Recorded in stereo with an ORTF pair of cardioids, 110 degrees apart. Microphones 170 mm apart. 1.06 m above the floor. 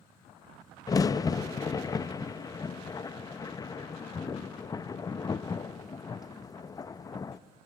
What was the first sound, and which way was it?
A crack, 20° left.